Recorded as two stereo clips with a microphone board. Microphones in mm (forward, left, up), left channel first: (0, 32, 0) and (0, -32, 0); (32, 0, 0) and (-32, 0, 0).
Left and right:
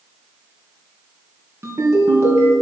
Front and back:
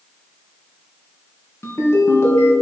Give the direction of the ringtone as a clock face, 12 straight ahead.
2 o'clock.